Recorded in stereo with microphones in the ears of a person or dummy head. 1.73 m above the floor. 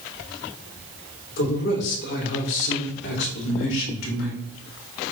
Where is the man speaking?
60° left (ahead or behind), 5 m; by 4.4 s 80° left, 3.5 m.